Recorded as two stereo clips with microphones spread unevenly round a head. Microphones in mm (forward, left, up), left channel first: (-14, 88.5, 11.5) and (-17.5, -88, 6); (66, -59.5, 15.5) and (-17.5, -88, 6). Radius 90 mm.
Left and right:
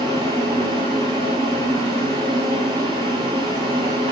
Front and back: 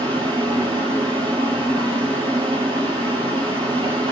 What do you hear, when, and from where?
0.0 s a fan: 150° right, 2.5 m